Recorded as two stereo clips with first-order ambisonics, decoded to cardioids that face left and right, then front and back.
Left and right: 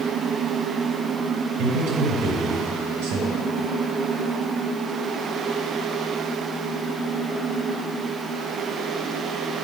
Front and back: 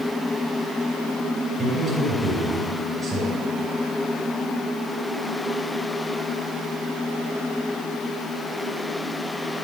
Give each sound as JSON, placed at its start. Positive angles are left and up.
{"t": 1.6, "sound": "a man speaking", "azimuth_deg": -100, "distance_m": 4.5}